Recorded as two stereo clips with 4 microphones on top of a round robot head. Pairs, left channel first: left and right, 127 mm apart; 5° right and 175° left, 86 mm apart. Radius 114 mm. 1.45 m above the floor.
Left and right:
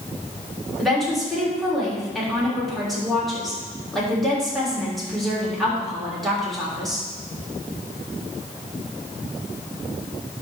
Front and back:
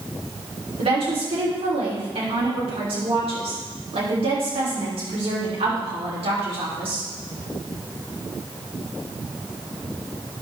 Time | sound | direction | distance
0.8 | a woman speaking | straight behind | 3.5 m